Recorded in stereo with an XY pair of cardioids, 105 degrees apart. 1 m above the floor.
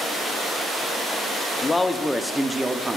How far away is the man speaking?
About 1.4 m.